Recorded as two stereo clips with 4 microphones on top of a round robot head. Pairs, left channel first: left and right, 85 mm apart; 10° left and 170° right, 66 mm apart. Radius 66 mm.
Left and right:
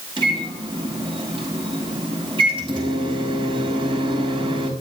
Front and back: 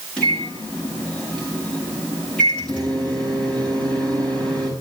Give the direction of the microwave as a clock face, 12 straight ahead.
2 o'clock.